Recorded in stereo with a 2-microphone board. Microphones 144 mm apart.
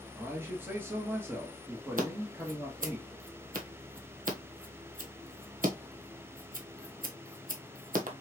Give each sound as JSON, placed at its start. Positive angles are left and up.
{"t": 0.2, "sound": "a man speaking", "side_deg": -15, "distance_m": 1.4}
{"t": 2.0, "sound": "scissors", "side_deg": -70, "distance_m": 1.2}